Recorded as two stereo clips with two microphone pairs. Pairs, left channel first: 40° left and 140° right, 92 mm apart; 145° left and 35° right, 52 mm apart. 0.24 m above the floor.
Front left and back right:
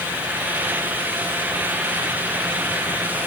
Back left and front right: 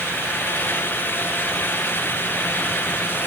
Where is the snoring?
No snoring in this recording.